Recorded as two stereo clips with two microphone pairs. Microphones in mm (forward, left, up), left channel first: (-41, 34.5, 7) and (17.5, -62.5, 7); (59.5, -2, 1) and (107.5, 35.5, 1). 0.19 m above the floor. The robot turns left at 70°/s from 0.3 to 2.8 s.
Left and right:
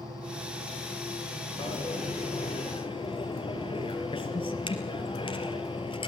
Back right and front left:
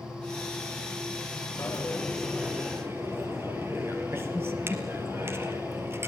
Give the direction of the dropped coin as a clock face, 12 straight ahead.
6 o'clock.